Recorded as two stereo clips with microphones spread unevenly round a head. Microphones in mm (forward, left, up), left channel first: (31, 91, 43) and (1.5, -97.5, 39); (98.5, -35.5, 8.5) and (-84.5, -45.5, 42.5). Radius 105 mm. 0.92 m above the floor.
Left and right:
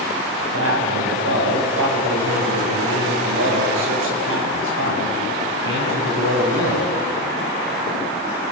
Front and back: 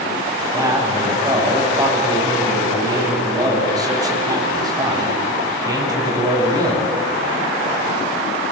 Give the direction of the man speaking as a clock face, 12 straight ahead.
4 o'clock.